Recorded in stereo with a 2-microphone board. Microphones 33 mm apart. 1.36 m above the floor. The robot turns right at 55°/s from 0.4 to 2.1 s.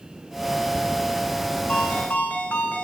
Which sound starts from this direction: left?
A ringtone, at 1.7 s.